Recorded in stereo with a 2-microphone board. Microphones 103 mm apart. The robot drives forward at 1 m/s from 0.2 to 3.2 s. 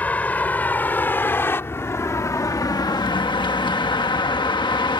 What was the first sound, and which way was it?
A vehicle, 15° left (ahead or behind).